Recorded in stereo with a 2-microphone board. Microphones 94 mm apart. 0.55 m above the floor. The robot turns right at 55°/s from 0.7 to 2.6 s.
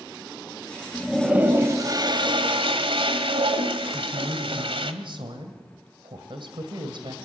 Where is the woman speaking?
65° right (ahead or behind), 2 m.